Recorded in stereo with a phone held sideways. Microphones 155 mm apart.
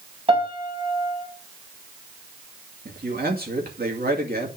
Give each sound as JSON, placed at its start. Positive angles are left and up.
{"t": 0.3, "sound": "a piano", "side_deg": -40, "distance_m": 3.0}
{"t": 2.9, "sound": "a man speaking", "side_deg": -85, "distance_m": 2.5}